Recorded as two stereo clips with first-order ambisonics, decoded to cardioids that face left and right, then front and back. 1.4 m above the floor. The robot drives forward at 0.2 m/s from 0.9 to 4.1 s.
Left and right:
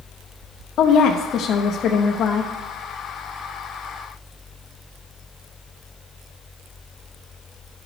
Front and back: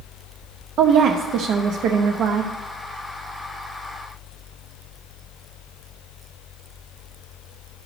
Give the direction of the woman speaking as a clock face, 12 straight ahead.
8 o'clock.